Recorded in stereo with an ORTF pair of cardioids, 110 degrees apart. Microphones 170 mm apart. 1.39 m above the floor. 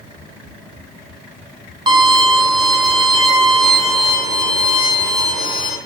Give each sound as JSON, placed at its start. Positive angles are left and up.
{"t": 1.9, "sound": "a violin", "azimuth_deg": -25, "distance_m": 0.9}